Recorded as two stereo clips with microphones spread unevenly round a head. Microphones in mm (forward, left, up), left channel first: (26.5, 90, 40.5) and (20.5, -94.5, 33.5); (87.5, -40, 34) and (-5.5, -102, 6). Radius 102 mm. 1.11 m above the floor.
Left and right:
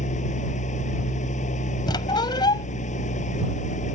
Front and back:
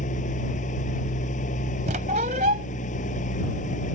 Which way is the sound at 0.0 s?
35° left.